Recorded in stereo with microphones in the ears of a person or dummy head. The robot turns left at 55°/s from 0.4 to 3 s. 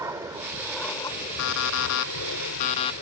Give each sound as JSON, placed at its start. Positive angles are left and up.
{"t": 0.0, "sound": "an aircraft", "azimuth_deg": -160}
{"t": 1.4, "sound": "an alarm clock", "azimuth_deg": 120}